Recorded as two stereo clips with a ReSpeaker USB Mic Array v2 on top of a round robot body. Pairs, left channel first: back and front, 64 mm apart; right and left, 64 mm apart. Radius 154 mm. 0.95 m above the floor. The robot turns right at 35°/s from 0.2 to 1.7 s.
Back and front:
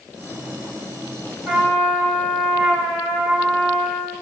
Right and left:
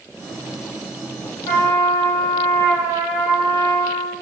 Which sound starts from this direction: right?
A trumpet, at 1.4 s.